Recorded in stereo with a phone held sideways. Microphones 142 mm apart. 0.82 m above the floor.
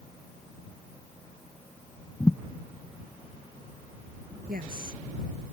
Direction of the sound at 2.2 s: 10° left (ahead or behind).